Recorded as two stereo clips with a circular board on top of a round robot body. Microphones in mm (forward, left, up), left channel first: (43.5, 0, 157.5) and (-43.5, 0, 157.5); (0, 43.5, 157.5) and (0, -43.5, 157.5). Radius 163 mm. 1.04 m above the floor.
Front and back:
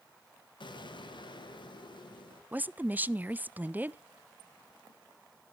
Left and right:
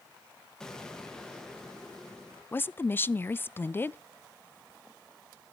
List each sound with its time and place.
0.6 s an explosion: 10° left, 1.9 m
2.5 s a woman speaking: 130° left, 0.5 m